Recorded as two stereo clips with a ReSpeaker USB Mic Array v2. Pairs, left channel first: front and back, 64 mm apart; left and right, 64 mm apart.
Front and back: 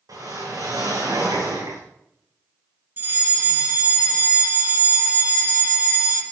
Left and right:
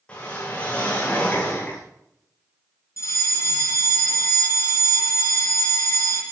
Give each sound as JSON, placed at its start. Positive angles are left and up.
{"t": 0.1, "sound": "a whoosh", "azimuth_deg": 165, "distance_m": 8.5}
{"t": 3.0, "sound": "a fire alarm", "azimuth_deg": 125, "distance_m": 6.0}